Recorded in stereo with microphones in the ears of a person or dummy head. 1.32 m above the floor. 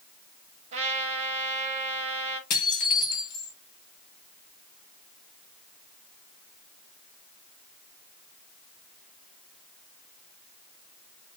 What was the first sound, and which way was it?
A trumpet, 40° right (ahead or behind).